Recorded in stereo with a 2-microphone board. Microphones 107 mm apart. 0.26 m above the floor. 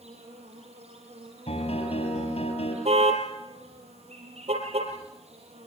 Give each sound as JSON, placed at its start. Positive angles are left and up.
{"t": 0.0, "sound": "an insect", "side_deg": -85, "distance_m": 8.0}
{"t": 1.5, "sound": "a piano", "side_deg": 80, "distance_m": 5.5}
{"t": 2.9, "sound": "a car horn", "side_deg": -80, "distance_m": 4.5}